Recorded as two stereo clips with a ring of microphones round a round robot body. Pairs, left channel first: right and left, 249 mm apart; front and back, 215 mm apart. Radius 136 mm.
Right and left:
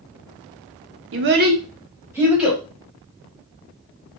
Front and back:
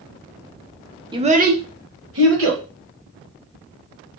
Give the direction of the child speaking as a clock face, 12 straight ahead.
8 o'clock.